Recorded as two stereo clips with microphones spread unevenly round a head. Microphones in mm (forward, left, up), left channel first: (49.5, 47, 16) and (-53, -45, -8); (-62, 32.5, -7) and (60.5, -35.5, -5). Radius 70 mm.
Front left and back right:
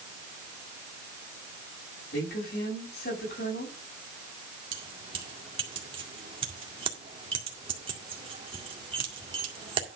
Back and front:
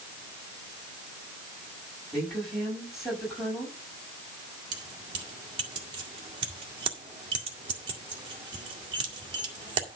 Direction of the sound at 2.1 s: 60° left.